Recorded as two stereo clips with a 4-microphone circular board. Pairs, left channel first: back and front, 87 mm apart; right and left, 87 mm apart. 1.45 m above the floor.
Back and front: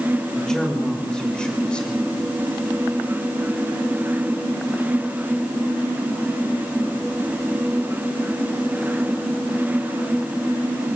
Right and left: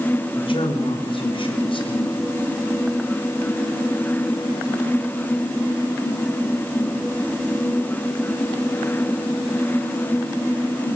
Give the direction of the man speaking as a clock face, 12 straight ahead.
3 o'clock.